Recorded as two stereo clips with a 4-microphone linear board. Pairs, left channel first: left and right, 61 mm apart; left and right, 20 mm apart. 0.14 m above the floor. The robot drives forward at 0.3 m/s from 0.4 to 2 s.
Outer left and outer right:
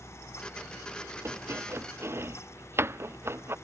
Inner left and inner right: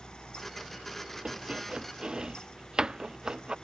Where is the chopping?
45° right (ahead or behind); by 3.5 s 40° right (ahead or behind).